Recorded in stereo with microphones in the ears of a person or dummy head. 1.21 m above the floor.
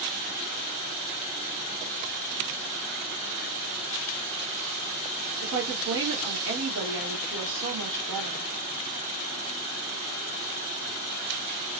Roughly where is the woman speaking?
Right.